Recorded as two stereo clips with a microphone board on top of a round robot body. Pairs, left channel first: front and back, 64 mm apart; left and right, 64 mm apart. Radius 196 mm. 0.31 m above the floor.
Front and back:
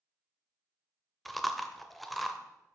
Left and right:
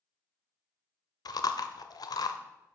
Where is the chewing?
90° left, 0.8 m.